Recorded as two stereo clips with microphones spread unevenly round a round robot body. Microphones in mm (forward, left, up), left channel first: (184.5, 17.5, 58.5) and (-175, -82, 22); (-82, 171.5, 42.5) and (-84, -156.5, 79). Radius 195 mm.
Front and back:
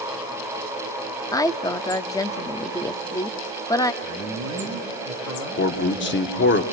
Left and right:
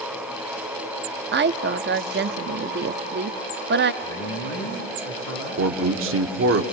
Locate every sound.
1.3 s a woman speaking: 65° right, 0.7 m
4.0 s a man speaking: 60° left, 7 m
5.6 s a man speaking: 40° right, 1.4 m